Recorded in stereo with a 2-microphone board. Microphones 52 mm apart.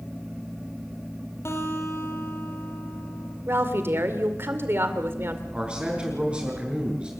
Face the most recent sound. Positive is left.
turn(degrees=-25)  # may be behind; listen again after turning